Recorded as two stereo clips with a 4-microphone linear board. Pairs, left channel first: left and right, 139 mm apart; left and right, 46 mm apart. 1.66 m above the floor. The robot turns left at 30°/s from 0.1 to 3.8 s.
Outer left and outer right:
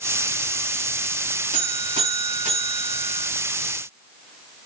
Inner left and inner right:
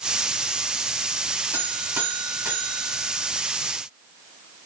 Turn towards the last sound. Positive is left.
turn(degrees=-150)